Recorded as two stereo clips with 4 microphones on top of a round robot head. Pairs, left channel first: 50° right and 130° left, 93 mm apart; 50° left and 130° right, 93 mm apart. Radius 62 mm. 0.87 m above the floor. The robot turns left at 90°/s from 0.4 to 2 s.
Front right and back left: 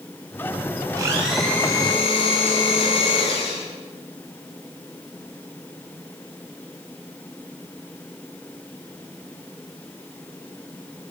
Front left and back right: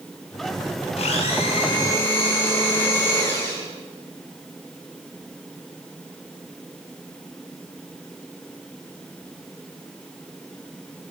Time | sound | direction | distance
1.0 | a blender | 75° left | 8 m